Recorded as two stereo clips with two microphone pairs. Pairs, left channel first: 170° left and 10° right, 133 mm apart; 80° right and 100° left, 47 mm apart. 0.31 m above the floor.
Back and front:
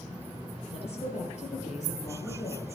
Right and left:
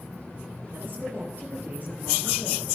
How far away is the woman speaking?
About 6 m.